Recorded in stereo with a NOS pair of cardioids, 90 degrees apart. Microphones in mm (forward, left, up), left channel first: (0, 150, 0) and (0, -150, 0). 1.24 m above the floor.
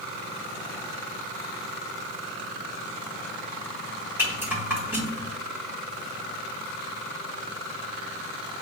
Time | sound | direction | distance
4.2 | a rattle | 10° right | 2 m